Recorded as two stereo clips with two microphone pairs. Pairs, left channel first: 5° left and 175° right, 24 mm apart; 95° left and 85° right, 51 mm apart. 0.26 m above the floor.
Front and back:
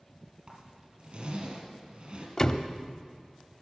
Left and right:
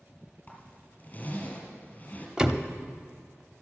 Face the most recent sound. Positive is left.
turn(degrees=-20)